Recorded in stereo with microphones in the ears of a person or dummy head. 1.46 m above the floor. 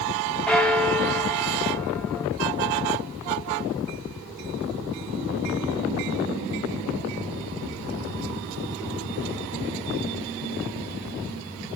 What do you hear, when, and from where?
0.5 s a bell: centre (ahead or behind), 0.6 m